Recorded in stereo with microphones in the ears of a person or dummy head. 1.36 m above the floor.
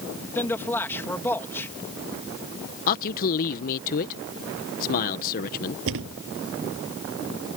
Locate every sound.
0.3 s a man speaking: 10° left (ahead or behind)
2.9 s a man speaking: 40° left (ahead or behind)
5.9 s a thud: 65° right (ahead or behind)